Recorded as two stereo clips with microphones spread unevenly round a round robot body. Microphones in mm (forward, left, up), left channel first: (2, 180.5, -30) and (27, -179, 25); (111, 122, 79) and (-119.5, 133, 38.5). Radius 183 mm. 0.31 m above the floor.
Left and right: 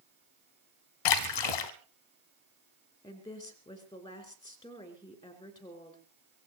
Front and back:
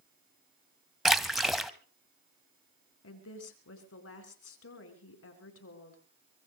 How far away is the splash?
About 1.0 m.